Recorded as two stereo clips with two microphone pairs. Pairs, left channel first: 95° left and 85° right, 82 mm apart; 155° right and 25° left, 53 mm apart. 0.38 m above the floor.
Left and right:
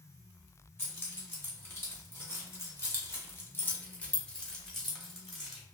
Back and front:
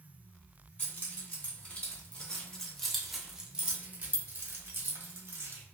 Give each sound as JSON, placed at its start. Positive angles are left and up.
{"t": 0.8, "sound": "keys jangling", "azimuth_deg": 155, "distance_m": 1.7}